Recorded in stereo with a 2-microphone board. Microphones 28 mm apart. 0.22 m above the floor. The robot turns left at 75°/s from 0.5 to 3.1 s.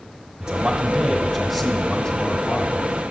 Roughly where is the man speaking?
Centre.